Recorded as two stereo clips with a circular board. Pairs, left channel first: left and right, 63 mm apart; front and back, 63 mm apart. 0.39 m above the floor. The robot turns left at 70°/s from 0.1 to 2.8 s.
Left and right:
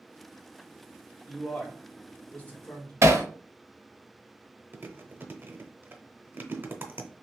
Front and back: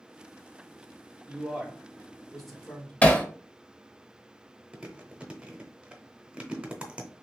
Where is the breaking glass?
I don't hear breaking glass.